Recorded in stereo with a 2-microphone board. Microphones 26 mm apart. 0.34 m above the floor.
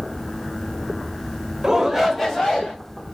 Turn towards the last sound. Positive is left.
turn(degrees=15)  # may be behind; listen again after turning